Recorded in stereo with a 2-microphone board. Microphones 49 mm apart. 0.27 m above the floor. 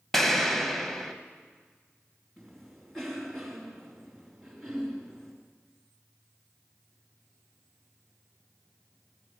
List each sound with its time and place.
0.1 s an explosion: 10° left (ahead or behind), 1.1 m
2.4 s a cough: 5° left (ahead or behind), 3 m